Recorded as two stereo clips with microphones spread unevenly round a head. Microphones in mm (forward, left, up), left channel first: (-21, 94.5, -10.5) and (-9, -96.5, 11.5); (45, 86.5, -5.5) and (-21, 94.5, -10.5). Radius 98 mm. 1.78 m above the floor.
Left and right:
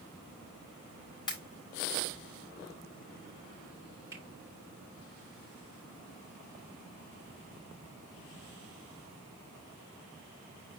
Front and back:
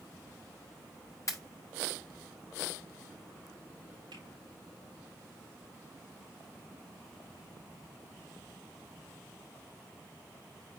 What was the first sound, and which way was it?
A pop, 20° left.